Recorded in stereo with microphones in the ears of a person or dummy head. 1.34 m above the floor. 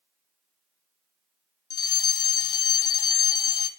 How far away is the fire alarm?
About 1.9 m.